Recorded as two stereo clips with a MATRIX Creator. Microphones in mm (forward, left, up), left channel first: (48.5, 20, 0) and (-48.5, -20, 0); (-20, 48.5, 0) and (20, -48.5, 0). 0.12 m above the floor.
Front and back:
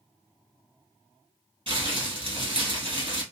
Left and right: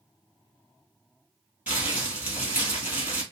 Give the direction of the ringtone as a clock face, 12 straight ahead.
No ringtone in this recording.